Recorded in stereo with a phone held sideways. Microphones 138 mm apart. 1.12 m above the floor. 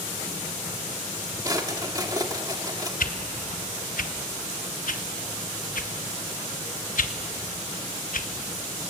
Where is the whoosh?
80° left, 1.2 m.